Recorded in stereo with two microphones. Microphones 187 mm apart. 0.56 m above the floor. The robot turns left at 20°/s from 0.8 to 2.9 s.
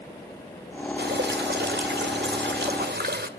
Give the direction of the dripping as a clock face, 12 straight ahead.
2 o'clock.